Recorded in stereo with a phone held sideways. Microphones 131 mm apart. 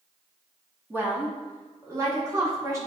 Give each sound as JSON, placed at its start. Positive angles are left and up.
{"t": 0.9, "sound": "a woman speaking", "side_deg": -15, "distance_m": 2.0}